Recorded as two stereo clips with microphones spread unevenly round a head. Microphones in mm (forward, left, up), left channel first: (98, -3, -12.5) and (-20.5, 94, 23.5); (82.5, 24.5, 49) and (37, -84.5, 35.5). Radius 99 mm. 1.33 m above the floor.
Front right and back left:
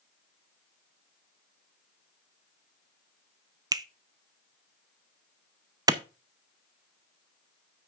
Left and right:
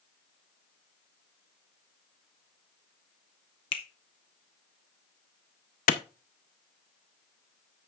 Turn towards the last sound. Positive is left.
turn(degrees=70)